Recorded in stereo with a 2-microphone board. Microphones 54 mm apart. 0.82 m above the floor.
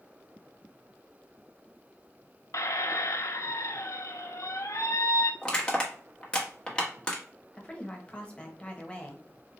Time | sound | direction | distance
2.5 | a squeak | 70° left (ahead or behind) | 0.6 m
5.4 | crushing | 20° left (ahead or behind) | 1.2 m
7.5 | a woman speaking | 20° left (ahead or behind) | 1.1 m